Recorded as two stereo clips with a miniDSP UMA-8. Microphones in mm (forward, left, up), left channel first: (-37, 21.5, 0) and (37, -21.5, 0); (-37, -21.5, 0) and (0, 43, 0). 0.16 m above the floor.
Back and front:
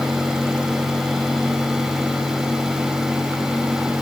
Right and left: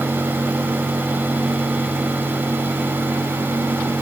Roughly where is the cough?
No cough in this recording.